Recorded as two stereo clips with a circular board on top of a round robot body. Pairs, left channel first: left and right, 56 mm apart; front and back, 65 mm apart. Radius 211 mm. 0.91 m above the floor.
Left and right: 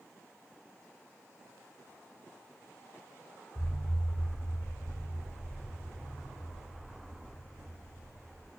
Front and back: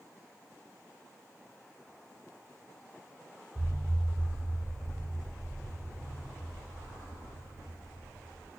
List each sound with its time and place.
3.5 s an explosion: 130° left, 0.6 m